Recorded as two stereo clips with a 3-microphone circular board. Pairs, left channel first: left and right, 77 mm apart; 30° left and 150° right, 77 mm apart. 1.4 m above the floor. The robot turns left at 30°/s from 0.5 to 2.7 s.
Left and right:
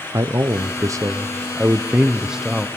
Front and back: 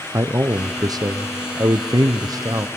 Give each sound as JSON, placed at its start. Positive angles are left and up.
{"t": 0.1, "sound": "a man speaking", "azimuth_deg": -115, "distance_m": 0.7}